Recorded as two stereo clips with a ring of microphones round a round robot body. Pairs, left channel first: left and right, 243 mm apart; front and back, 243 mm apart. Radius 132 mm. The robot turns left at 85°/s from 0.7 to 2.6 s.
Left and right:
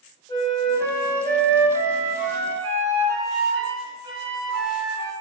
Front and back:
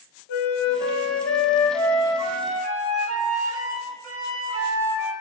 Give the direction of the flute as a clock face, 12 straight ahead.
11 o'clock.